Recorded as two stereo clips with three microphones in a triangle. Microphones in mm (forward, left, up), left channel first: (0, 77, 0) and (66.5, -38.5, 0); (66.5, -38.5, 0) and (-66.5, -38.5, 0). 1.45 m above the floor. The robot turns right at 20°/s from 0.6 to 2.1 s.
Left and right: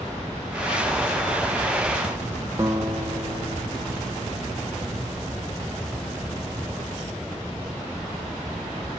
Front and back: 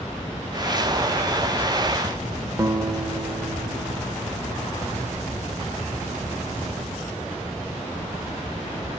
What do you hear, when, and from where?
2.6 s a guitar: 125° right, 0.6 m